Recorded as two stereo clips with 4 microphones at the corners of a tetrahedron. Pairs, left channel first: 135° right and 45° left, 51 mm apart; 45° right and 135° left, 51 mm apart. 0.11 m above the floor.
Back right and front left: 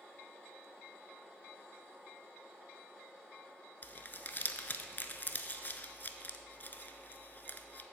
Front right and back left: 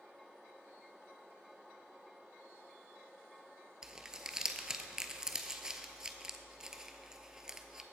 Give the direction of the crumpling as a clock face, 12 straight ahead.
5 o'clock.